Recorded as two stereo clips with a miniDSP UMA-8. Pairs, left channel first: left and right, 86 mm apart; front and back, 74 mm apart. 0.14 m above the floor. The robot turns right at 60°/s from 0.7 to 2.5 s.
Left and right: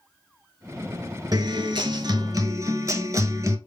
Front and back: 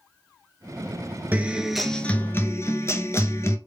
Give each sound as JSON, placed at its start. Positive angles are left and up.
{"t": 1.3, "sound": "a guitar", "azimuth_deg": -120, "distance_m": 0.5}